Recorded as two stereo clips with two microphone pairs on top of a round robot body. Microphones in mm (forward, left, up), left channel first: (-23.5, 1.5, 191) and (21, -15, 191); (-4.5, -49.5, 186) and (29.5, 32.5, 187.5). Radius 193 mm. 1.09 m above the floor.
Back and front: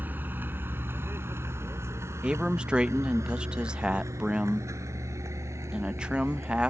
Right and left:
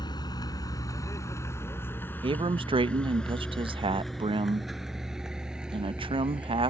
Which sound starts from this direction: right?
A vehicle, at 0.0 s.